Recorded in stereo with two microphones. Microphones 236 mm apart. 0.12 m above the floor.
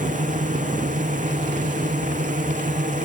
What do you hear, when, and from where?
0.0 s a drone: 35° right (ahead or behind)